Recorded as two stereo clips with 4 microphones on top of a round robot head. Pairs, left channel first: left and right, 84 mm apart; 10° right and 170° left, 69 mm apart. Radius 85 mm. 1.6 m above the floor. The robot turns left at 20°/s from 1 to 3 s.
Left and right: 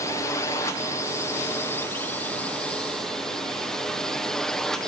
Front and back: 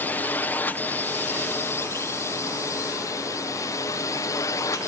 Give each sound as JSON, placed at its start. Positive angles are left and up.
{"t": 0.0, "sound": "a drone", "azimuth_deg": 45}